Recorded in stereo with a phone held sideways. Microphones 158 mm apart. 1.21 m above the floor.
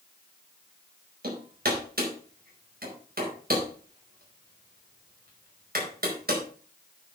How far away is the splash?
No splash in this recording.